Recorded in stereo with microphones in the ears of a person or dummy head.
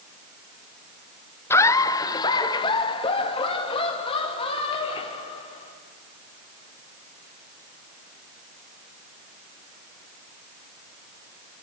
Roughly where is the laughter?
Centre.